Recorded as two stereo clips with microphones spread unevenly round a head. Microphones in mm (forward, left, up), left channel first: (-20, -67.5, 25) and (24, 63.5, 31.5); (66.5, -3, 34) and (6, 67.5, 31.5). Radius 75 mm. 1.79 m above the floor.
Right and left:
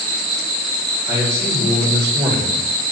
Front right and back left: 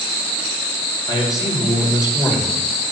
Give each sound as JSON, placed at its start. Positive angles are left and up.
{"t": 1.1, "sound": "a man speaking", "azimuth_deg": 0, "distance_m": 7.5}